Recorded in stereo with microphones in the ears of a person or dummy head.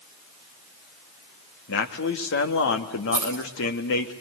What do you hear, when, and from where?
1.7 s a man speaking: 65° left (ahead or behind), 2 m
3.1 s keys jangling: 20° left (ahead or behind), 2.5 m